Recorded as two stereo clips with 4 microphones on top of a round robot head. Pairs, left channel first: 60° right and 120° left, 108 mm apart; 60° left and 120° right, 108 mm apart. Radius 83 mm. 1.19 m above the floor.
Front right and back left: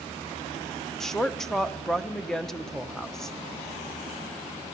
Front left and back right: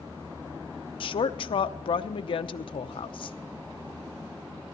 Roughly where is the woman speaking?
Ahead left.